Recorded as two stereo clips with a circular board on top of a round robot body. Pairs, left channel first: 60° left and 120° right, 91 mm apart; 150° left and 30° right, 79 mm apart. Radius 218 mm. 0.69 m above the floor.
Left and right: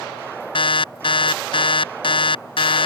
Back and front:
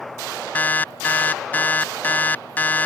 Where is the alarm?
80° left.